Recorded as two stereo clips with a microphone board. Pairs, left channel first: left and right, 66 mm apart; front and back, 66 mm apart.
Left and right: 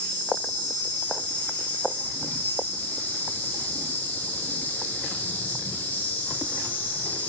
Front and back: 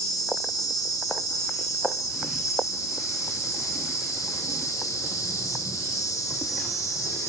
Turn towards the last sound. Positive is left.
turn(degrees=25)